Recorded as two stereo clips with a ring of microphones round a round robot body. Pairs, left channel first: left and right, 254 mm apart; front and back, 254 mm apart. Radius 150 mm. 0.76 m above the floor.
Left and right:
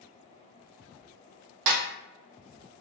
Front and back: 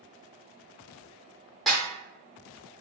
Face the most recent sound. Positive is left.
turn(degrees=-90)